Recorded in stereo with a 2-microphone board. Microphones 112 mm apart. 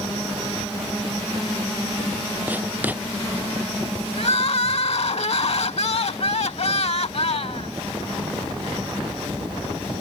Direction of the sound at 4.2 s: 60° left (ahead or behind).